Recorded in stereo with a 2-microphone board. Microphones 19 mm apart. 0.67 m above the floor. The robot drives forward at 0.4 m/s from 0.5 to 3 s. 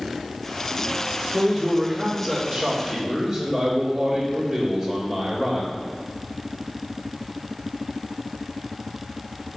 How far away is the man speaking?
About 1.5 m.